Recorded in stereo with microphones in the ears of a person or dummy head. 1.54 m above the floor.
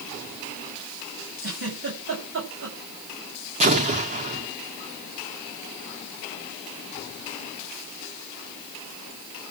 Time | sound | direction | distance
1.4 | a giggle | 65° right (ahead or behind) | 9.5 m
3.6 | an explosion | 35° right (ahead or behind) | 1.8 m